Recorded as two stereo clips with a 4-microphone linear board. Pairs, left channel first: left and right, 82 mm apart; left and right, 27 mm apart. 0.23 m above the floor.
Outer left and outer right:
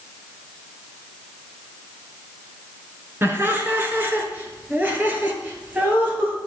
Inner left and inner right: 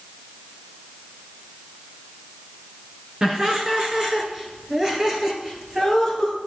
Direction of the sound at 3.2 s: 25° right (ahead or behind).